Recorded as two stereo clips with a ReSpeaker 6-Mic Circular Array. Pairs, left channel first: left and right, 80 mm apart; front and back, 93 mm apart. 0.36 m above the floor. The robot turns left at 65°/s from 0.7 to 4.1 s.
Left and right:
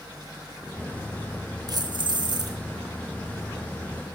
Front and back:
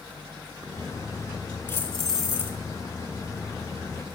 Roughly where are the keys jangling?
Ahead right.